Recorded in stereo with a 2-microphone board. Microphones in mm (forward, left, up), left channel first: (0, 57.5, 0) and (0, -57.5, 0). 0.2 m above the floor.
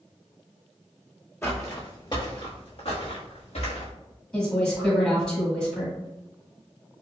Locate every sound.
1.4 s footsteps: 20° left (ahead or behind), 0.9 m; by 3.9 s 70° left (ahead or behind), 1.6 m
4.3 s a woman speaking: 5° left (ahead or behind), 1.5 m